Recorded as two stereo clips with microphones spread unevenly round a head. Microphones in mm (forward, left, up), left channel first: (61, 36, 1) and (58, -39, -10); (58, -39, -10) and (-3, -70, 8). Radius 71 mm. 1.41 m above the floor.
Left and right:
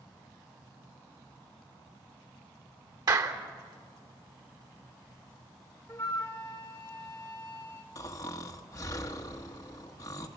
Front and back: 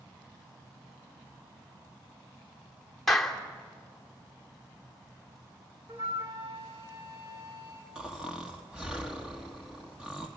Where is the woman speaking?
No woman speaking in this recording.